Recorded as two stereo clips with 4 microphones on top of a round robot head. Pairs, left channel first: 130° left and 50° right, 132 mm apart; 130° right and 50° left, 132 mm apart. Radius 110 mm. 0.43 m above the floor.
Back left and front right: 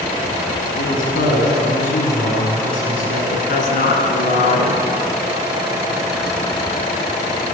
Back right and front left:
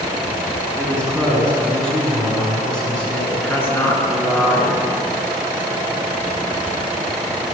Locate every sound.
0.8 s a man speaking: 145° left, 6 m
3.3 s a woman speaking: 155° left, 5.5 m